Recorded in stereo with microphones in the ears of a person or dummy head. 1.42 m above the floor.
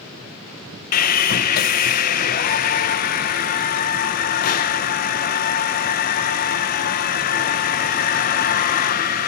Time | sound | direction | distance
0.9 | sawing | 45° left (ahead or behind) | 0.8 m